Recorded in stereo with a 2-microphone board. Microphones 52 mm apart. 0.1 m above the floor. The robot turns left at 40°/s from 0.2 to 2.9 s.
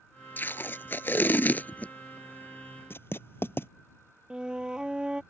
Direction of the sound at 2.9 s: 50° left (ahead or behind).